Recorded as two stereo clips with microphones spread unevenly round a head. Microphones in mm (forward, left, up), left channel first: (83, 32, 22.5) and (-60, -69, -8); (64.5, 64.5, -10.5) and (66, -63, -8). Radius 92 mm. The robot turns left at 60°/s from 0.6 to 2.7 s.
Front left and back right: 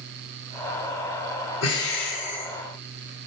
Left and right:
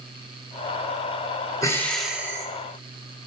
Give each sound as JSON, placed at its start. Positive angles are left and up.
{"t": 1.6, "sound": "breathing", "azimuth_deg": 25, "distance_m": 1.7}